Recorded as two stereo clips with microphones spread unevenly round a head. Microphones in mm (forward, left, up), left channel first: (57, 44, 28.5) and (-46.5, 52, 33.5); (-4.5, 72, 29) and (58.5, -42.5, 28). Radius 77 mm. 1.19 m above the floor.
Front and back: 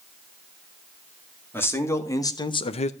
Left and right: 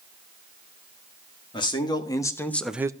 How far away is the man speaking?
About 2 m.